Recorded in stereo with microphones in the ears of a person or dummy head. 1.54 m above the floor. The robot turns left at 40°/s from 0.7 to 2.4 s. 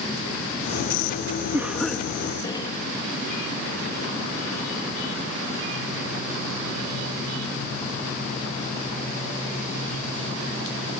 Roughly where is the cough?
Behind.